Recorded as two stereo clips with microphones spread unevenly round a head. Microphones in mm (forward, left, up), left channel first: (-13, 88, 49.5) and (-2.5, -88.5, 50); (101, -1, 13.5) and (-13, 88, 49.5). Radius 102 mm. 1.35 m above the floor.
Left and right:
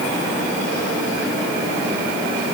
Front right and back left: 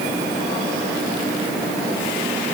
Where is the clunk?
I don't hear a clunk.